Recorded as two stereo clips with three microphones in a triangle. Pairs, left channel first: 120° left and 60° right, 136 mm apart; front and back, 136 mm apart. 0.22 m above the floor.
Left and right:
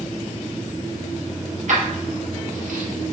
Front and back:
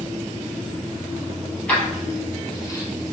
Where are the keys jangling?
80° right, 3 m; by 2.9 s 60° right, 3 m.